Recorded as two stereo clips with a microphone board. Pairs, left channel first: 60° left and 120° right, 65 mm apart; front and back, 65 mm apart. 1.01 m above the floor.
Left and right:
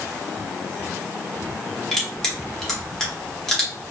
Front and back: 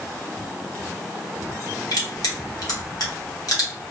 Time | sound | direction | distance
1.9 | crushing | 25° right | 1.1 m